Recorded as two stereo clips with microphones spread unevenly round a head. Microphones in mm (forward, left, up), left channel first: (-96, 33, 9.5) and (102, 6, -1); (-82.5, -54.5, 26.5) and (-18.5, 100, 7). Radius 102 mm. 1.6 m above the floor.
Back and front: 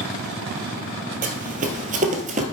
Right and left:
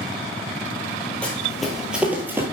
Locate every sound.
1.2 s running footsteps: 40° right, 2 m; by 2.5 s 10° right, 1.8 m